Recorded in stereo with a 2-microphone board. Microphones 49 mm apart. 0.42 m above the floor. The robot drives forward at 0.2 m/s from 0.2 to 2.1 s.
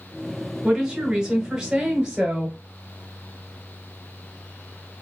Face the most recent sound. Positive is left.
turn(degrees=-25)  # may be behind; listen again after turning